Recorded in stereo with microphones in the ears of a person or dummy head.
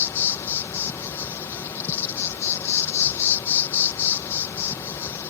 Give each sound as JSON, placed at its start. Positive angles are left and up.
{"t": 0.0, "sound": "an insect", "side_deg": 15}